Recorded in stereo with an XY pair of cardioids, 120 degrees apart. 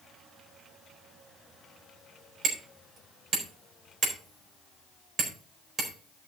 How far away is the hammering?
About 4.5 m.